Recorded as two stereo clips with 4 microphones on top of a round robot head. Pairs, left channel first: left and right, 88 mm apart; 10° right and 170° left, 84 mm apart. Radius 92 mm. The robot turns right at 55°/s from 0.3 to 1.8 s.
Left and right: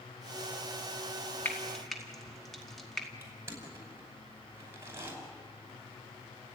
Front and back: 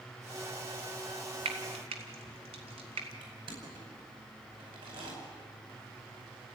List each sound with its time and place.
1.4 s frying: 160° left, 2 m; by 3.1 s straight behind, 2 m
3.2 s crushing: 150° right, 5 m